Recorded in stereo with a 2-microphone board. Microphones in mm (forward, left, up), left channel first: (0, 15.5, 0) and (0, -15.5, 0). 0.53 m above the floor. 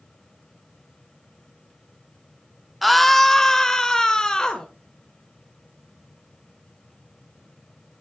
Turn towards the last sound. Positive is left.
turn(degrees=20)  # may be behind; listen again after turning